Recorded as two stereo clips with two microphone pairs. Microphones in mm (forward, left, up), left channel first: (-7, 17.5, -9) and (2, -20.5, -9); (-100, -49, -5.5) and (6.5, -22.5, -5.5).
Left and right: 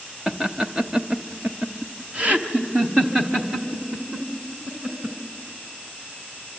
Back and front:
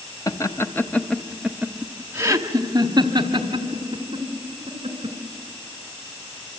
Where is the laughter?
145° right, 1.1 m; by 5.2 s 15° right, 2.5 m.